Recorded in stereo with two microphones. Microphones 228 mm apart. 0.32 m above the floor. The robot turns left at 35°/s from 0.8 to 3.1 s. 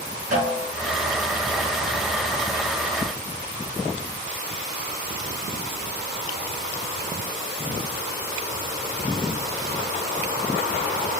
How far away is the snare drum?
About 3 m.